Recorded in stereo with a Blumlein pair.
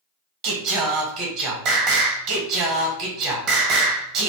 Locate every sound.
0.4 s singing: 40° right, 0.8 m